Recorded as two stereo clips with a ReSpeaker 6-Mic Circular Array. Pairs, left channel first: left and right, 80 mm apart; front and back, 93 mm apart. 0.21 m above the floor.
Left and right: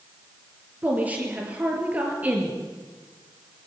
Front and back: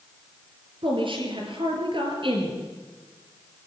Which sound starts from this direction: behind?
A woman speaking, at 0.8 s.